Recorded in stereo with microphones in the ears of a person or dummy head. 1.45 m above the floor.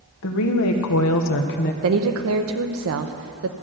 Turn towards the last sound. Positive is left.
turn(degrees=-75)  # may be behind; listen again after turning